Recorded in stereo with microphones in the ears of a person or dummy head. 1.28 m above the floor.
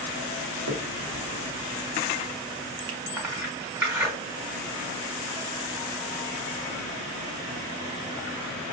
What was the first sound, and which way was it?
A finger snap, 70° right (ahead or behind).